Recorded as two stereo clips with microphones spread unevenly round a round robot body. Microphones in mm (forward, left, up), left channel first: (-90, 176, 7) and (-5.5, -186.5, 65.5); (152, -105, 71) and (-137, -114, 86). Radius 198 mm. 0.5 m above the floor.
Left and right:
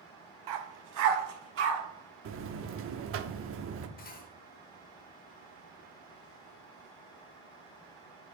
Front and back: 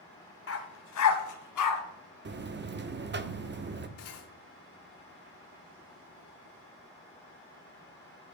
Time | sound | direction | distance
0.5 | a dog barking | 45° right | 1.1 m
2.2 | a buzzer | 130° right | 0.8 m
4.0 | cutlery clinking | 40° left | 0.8 m